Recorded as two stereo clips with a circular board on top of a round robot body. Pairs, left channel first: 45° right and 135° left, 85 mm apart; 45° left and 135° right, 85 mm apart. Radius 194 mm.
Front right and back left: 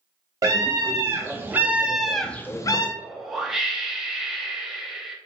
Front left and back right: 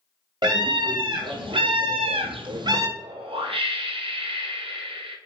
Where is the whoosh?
140° right, 0.7 m.